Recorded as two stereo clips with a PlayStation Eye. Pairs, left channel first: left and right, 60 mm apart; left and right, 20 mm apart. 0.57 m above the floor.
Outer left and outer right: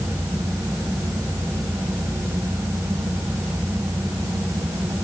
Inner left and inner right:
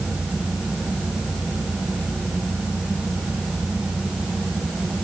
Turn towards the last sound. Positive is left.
No sound to turn to.